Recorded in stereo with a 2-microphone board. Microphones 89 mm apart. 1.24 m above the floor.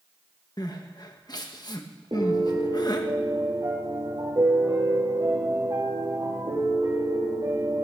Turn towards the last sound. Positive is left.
turn(degrees=-45)  # may be behind; listen again after turning